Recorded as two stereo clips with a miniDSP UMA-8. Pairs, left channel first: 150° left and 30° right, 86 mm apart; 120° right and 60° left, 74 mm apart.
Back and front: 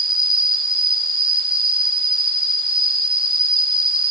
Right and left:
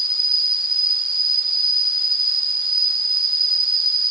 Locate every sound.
0.0 s an insect: 25° right, 4 m